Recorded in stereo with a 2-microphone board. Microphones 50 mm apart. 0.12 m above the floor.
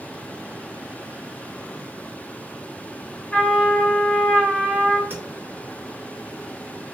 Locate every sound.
3.3 s a trumpet: 15° left (ahead or behind), 1.7 m
5.1 s tapping: 40° right (ahead or behind), 1.7 m